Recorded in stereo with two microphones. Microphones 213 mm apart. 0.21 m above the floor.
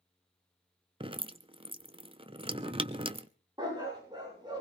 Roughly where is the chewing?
I don't hear chewing.